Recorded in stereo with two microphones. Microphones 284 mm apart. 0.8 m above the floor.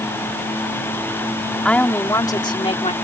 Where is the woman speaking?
5° left (ahead or behind); by 2.9 s 25° left (ahead or behind).